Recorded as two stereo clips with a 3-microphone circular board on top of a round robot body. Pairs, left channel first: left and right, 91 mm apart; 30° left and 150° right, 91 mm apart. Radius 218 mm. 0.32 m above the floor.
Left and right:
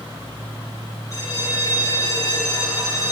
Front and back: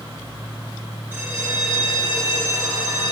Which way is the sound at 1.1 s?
145° left.